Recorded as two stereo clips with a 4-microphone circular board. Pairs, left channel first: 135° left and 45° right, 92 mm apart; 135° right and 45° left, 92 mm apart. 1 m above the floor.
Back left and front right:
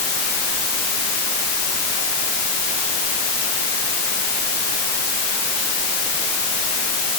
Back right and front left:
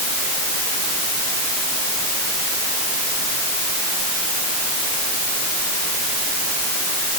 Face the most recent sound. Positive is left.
No sound to turn to.